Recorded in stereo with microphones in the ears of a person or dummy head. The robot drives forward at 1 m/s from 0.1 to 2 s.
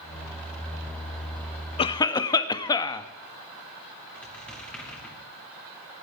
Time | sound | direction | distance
1.8 | a cough | 25° left (ahead or behind) | 0.5 m
4.2 | a squeak | 5° left (ahead or behind) | 2.5 m